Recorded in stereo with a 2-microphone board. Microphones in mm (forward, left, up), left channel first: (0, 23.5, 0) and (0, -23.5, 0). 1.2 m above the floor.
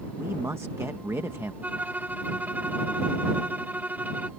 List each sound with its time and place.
0.2 s a man speaking: 75° right (ahead or behind)
1.6 s a violin: 40° right (ahead or behind)